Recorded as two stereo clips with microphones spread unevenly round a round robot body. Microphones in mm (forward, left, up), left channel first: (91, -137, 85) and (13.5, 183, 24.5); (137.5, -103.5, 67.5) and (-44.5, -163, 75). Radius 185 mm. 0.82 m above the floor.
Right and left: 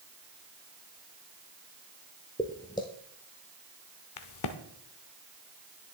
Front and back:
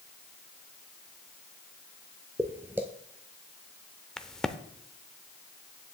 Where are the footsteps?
105° right, 0.8 m.